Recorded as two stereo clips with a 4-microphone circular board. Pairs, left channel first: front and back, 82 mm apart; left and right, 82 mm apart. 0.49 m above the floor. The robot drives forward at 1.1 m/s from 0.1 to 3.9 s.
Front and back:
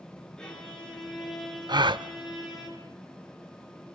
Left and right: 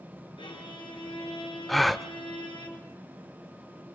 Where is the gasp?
Straight behind, 0.7 m.